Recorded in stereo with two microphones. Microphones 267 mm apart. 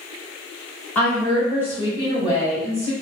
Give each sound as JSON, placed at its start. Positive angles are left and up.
{"t": 0.9, "sound": "a woman speaking", "side_deg": 5, "distance_m": 1.6}